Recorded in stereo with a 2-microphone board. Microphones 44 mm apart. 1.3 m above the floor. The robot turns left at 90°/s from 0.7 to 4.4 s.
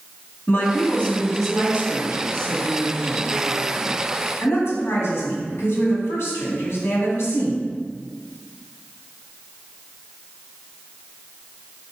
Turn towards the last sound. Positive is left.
turn(degrees=85)